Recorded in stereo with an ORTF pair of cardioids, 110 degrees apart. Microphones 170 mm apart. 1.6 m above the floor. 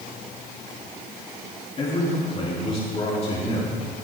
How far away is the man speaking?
About 3.5 m.